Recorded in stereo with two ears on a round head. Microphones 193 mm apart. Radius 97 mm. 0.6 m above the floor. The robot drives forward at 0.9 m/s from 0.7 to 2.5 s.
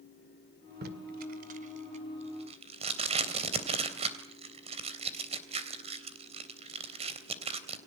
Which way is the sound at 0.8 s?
50° right (ahead or behind).